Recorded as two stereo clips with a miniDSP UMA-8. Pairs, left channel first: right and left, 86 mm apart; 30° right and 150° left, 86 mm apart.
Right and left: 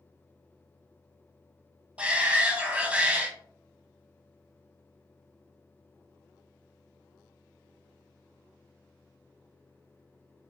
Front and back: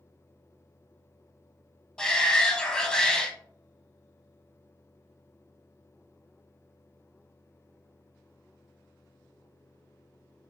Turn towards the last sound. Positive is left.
turn(degrees=40)